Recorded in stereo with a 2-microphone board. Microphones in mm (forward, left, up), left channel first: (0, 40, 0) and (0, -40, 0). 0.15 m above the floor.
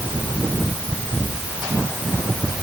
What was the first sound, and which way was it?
Only background noise.